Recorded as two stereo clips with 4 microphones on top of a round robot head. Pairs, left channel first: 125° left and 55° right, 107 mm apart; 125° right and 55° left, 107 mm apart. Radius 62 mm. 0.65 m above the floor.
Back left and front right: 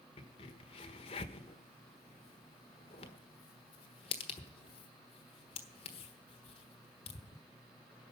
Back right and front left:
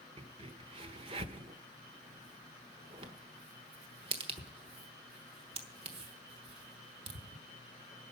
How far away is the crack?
About 1.2 m.